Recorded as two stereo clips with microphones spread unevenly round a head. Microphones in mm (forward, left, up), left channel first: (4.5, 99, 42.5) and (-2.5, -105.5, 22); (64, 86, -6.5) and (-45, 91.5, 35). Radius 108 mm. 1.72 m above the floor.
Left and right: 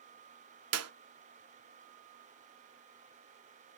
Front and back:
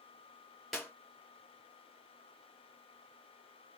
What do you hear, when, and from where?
0.7 s a clap: 105° right, 0.8 m